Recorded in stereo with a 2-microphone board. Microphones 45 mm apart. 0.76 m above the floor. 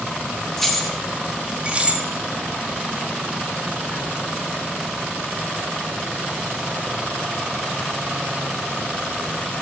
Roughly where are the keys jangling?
Centre.